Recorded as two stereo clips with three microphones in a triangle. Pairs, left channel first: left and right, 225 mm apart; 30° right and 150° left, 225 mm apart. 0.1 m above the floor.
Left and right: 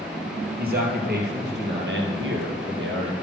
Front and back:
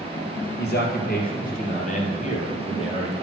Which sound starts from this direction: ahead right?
A man speaking, at 0.6 s.